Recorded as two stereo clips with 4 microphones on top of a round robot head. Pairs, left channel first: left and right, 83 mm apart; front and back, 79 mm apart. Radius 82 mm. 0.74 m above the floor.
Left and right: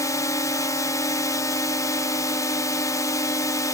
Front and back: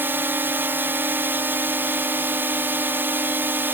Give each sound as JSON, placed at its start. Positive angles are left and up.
{"t": 0.0, "sound": "a drone", "azimuth_deg": 130}